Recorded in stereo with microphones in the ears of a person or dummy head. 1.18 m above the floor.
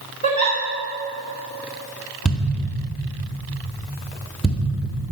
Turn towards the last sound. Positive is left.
turn(degrees=-5)  # may be behind; listen again after turning